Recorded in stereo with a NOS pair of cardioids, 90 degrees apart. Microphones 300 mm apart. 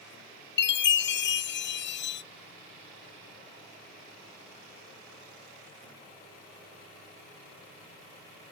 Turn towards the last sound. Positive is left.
turn(degrees=40)